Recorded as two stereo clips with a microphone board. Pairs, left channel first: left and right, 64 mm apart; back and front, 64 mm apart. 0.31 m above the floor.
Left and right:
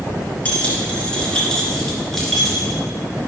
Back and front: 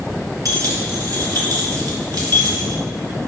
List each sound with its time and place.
0.5 s keys jangling: 20° left, 3 m; by 2.8 s straight ahead, 3.5 m